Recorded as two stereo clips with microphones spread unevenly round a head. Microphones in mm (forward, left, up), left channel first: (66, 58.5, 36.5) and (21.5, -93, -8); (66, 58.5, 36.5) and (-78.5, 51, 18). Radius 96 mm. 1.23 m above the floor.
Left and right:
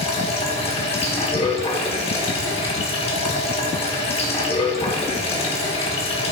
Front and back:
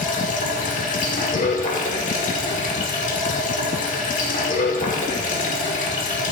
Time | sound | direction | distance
0.0 | running water | 30° left | 1.9 m